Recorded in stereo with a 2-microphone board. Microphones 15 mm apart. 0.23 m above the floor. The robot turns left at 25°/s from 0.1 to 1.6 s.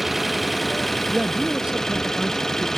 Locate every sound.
0.0 s an engine running: 175° right; by 2.8 s 150° left
1.1 s a man speaking: 65° right (ahead or behind); by 2.7 s 50° right (ahead or behind)